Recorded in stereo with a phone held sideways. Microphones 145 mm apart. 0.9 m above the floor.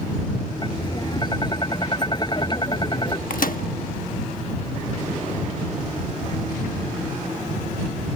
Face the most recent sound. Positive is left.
turn(degrees=75)  # may be behind; listen again after turning